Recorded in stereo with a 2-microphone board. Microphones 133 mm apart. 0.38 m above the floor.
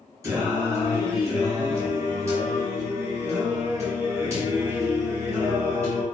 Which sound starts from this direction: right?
Singing, at 0.2 s.